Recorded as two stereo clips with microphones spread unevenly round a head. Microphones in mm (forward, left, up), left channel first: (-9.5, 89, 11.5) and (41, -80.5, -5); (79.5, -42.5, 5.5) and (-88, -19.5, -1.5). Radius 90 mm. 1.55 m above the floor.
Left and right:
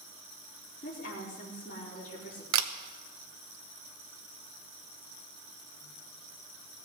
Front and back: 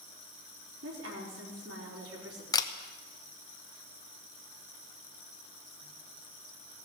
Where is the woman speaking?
160° left, 4 m.